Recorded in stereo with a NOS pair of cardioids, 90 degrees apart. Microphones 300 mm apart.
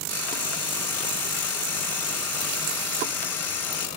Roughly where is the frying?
Ahead left.